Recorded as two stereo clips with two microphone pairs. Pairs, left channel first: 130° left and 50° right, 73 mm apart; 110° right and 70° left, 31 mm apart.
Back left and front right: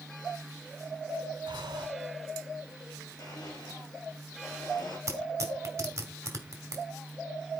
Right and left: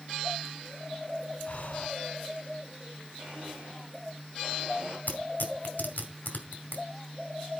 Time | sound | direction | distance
1.5 | breathing | 60° right | 0.7 m
3.2 | a blender | 110° left | 6.5 m
5.1 | tearing paper | 90° right | 2.0 m